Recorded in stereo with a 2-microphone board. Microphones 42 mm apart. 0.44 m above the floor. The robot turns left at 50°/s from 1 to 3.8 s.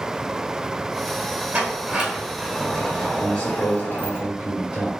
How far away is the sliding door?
About 1.7 m.